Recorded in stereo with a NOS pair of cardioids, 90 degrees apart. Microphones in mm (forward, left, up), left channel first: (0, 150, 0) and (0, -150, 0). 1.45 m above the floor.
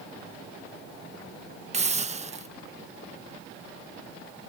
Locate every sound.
1.7 s a hiss: 20° right